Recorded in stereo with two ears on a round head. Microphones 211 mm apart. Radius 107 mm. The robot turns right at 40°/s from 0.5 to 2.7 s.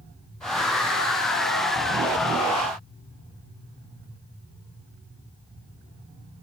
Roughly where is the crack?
No crack in this recording.